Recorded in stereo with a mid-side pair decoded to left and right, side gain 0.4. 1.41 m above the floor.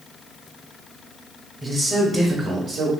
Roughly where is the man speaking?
Ahead right.